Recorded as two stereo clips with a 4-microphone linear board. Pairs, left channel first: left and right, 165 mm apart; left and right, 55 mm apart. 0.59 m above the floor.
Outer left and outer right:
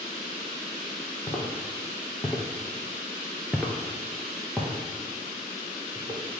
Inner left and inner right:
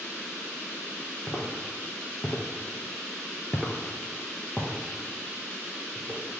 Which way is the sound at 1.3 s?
20° left (ahead or behind).